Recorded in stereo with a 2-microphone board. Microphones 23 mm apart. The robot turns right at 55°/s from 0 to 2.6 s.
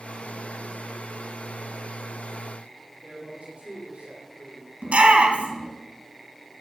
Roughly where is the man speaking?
Right.